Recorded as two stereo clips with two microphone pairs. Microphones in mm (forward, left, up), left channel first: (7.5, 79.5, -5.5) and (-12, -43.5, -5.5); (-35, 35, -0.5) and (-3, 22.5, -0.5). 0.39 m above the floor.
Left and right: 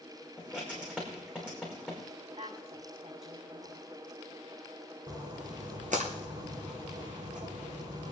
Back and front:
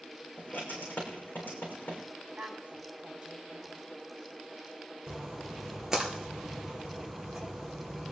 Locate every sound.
0.4 s writing: straight behind, 5.5 m
2.4 s a woman speaking: 70° right, 6.5 m
5.1 s a splash: 95° right, 2.5 m